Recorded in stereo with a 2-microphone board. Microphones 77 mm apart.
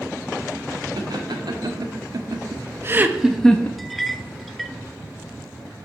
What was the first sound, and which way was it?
Laughter, 75° right (ahead or behind).